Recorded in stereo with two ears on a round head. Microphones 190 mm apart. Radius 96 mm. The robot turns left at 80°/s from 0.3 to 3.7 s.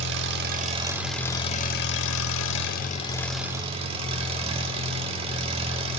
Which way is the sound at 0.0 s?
115° right.